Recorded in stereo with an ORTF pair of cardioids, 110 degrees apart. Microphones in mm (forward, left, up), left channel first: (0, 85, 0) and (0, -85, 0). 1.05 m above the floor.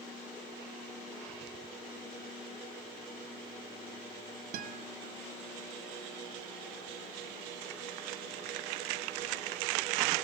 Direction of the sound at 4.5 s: 55° right.